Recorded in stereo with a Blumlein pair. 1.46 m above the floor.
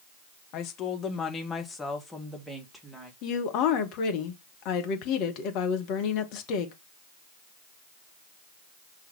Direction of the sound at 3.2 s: 40° left.